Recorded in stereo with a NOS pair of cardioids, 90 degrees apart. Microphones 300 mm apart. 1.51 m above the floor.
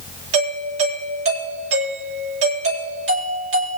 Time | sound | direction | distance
0.3 | a doorbell | 50° right | 8.5 m